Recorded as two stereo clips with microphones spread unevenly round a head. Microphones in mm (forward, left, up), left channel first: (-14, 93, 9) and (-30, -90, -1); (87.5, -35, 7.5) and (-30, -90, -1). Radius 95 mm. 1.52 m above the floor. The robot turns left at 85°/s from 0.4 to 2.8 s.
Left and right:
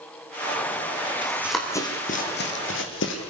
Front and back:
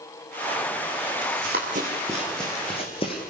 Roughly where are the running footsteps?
Behind.